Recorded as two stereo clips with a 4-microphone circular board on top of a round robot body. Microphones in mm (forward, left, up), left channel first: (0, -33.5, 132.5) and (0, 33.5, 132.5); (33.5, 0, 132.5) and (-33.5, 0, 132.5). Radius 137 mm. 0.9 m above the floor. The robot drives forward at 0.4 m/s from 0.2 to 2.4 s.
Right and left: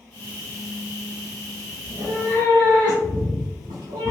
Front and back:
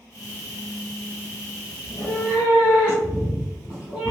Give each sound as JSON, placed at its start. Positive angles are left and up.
{"t": 1.8, "sound": "a cat meowing", "azimuth_deg": 75, "distance_m": 0.6}